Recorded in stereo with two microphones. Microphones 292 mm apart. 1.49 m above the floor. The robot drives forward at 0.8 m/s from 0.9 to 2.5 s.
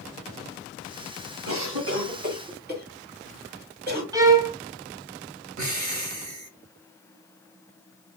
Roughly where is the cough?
Right.